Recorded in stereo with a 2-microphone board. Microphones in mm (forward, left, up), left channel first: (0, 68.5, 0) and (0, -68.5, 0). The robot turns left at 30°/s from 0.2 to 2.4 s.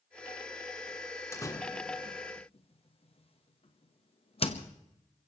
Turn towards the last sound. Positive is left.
turn(degrees=50)  # may be behind; listen again after turning